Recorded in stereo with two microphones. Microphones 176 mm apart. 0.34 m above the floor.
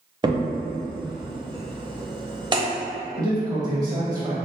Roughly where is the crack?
Right.